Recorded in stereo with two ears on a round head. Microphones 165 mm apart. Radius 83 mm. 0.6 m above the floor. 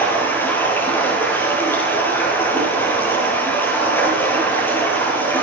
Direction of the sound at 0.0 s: 10° left (ahead or behind).